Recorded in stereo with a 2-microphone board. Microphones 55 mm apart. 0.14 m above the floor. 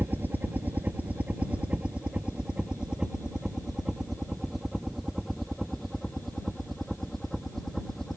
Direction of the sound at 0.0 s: 35° right (ahead or behind).